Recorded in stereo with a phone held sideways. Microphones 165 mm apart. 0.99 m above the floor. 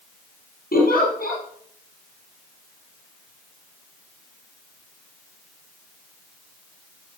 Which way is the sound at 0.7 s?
75° left (ahead or behind).